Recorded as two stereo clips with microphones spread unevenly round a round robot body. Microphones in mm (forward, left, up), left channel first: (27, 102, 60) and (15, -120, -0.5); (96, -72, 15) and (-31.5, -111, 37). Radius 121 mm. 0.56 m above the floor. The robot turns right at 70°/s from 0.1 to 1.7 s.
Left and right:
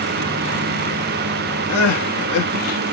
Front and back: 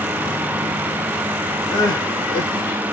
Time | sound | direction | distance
1.7 | crying | 100° left | 1.1 m